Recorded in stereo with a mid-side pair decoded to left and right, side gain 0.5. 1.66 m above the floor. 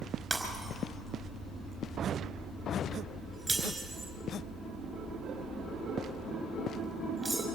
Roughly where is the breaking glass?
Ahead.